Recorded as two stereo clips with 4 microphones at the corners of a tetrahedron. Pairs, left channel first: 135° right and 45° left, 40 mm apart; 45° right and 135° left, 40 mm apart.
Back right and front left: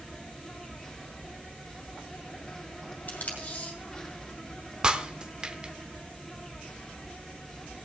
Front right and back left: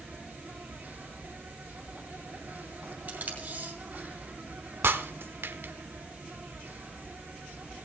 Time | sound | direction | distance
0.0 | an insect | 155° left | 3 m
3.1 | tape being pulled | straight behind | 2.5 m
4.8 | breaking glass | 110° left | 0.7 m